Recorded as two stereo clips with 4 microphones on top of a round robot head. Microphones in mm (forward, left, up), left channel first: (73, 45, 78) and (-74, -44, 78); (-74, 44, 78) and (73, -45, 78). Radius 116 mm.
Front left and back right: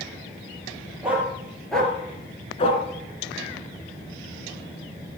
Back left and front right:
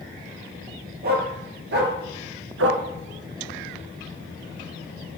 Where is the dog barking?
65° right, 3.5 m; by 2.8 s 20° right, 1.7 m.